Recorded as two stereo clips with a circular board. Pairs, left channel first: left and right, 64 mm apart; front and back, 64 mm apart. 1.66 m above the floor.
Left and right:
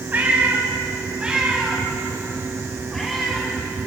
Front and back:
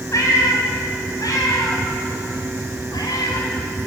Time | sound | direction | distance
0.1 | a cat meowing | 30° right | 5 m